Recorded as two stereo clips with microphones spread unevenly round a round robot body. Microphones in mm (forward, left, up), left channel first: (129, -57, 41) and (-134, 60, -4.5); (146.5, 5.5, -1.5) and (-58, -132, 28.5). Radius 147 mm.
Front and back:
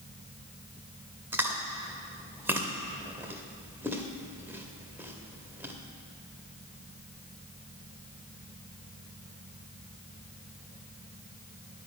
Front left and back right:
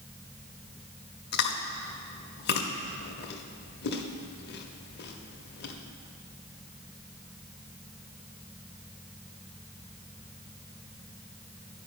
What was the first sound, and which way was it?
Chewing, 65° left.